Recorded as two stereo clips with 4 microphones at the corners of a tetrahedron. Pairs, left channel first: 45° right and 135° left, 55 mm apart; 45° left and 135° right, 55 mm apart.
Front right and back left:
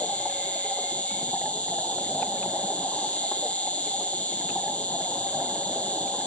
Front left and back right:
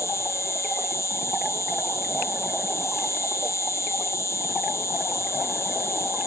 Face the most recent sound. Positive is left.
turn(degrees=20)